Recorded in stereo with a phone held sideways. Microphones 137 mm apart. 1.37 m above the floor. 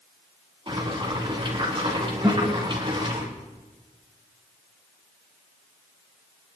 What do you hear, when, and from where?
0.7 s boiling: 35° right (ahead or behind), 3 m
2.2 s a guitar: centre (ahead or behind), 5.5 m